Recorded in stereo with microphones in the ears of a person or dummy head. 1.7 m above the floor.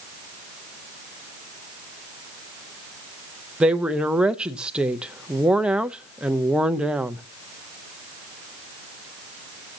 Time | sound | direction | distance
3.6 | a woman speaking | 10° right (ahead or behind) | 0.5 m